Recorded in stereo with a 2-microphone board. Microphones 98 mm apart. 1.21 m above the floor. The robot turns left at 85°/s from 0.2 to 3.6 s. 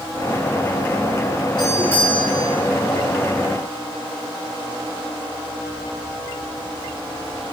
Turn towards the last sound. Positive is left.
turn(degrees=-120)